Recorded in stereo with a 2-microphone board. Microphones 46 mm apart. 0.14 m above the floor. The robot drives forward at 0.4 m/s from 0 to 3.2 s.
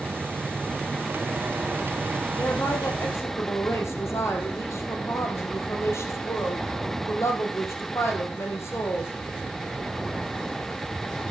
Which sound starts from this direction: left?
A woman speaking, at 2.4 s.